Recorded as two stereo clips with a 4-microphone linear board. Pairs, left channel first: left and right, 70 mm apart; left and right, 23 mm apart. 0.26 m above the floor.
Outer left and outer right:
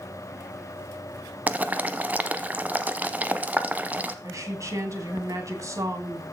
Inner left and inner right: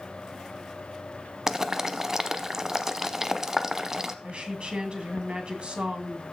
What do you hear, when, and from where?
1.5 s boiling: 20° right (ahead or behind), 0.8 m
4.2 s a woman speaking: 50° right (ahead or behind), 2 m